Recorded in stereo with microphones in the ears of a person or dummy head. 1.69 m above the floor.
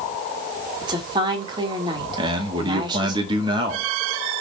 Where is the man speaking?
30° right (ahead or behind), 2.5 m.